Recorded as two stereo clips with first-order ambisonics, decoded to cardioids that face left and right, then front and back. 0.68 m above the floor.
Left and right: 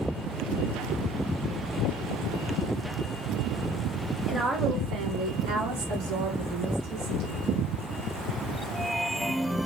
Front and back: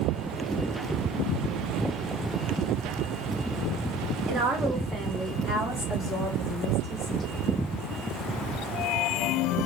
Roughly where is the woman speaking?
Behind.